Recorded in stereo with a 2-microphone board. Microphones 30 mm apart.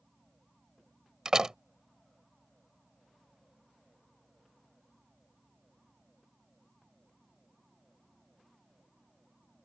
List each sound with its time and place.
1.2 s a door slam: 25° right (ahead or behind)